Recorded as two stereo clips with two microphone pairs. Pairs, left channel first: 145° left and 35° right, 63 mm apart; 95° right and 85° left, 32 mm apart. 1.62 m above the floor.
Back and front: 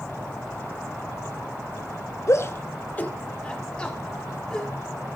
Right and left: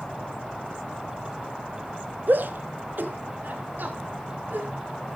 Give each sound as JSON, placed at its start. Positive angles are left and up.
{"t": 2.3, "sound": "a shout", "azimuth_deg": 110, "distance_m": 1.0}